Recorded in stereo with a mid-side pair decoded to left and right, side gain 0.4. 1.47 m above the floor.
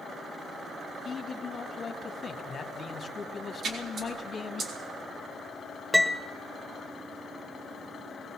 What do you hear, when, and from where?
1.1 s a man speaking: 45° left, 2.5 m
3.6 s a splash: 65° right, 4 m
5.9 s a piano: 5° right, 1.4 m